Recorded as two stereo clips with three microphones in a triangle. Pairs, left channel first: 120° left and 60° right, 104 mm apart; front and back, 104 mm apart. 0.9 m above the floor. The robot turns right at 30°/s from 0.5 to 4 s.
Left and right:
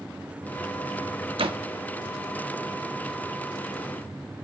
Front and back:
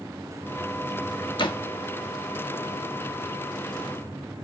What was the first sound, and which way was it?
A door slam, 35° right.